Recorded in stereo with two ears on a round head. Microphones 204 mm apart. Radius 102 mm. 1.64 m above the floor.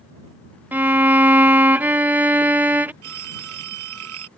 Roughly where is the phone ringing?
Right.